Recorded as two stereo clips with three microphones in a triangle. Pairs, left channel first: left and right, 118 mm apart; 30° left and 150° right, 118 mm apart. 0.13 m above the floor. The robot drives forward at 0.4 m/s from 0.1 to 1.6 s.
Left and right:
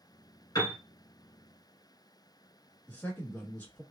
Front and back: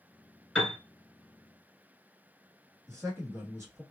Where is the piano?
110° left, 1.9 m; by 0.8 s 115° left, 1.9 m.